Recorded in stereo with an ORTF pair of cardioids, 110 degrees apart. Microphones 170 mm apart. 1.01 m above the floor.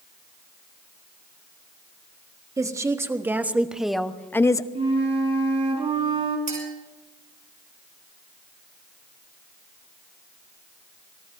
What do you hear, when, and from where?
2.6 s a woman speaking: 20° right, 1.7 m; by 4.7 s 25° left, 0.8 m
4.8 s a flute: 35° right, 4 m
6.5 s a clink: 45° right, 6 m